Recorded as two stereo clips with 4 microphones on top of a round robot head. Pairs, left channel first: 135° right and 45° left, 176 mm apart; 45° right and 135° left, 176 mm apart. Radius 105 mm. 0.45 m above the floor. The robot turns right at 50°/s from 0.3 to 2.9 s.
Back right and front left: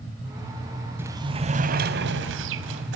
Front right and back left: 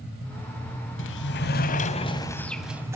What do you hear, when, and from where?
1.0 s a sliding door: 35° right, 0.9 m; by 3.0 s 60° left, 0.9 m